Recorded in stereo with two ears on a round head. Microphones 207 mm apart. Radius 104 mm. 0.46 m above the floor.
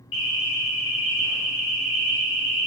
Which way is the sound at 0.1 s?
55° left (ahead or behind).